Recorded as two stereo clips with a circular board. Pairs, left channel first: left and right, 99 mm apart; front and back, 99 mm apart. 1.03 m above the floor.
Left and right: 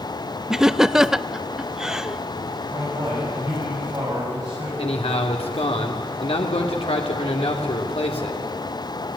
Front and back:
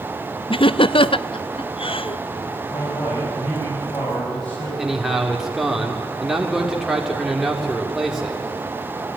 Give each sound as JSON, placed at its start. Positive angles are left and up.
{"t": 0.5, "sound": "laughter", "azimuth_deg": -5, "distance_m": 0.5}
{"t": 2.7, "sound": "a man speaking", "azimuth_deg": -40, "distance_m": 7.5}
{"t": 4.8, "sound": "a man speaking", "azimuth_deg": 95, "distance_m": 2.5}